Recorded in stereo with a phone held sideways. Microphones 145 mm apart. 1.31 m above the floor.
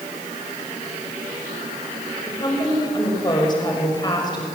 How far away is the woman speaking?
About 6 m.